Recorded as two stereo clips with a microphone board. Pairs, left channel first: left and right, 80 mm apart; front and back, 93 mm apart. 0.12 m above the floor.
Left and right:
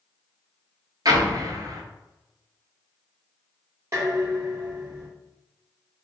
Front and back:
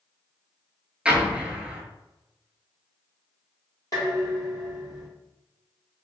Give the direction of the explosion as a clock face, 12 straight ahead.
3 o'clock.